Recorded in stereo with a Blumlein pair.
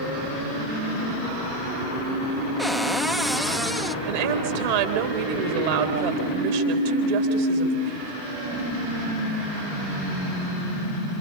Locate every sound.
2.6 s a cupboard door: straight ahead, 0.5 m
4.0 s a woman speaking: 55° right, 3.5 m